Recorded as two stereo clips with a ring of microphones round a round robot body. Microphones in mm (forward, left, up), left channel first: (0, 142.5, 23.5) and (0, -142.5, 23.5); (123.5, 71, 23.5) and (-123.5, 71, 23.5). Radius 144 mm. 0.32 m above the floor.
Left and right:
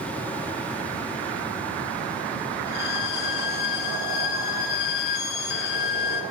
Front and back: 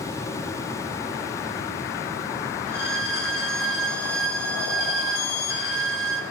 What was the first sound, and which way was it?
A violin, 40° left.